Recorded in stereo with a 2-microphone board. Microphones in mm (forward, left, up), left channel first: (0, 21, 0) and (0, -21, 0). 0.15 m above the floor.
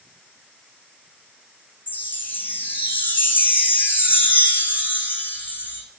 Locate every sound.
1.9 s a chime: 55° left (ahead or behind), 2 m